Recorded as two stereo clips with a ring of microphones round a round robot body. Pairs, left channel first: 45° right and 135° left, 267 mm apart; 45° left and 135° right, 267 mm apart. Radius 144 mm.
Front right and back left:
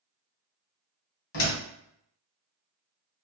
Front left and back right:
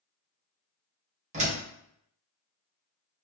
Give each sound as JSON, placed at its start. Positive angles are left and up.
{"t": 1.3, "sound": "a door slam", "azimuth_deg": -75, "distance_m": 1.5}